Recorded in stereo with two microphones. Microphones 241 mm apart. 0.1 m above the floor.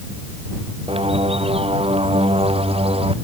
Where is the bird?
25° right (ahead or behind).